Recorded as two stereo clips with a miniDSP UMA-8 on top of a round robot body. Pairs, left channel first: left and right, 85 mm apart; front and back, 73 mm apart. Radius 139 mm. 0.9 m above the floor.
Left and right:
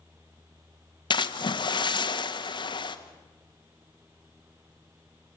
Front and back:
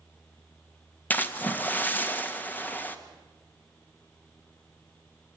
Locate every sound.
1.1 s a splash: 65° left, 1.7 m